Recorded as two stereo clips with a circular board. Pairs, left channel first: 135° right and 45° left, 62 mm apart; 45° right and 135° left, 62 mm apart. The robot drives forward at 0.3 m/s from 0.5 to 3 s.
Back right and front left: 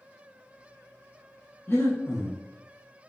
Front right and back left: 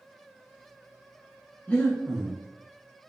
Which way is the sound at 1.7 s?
105° right.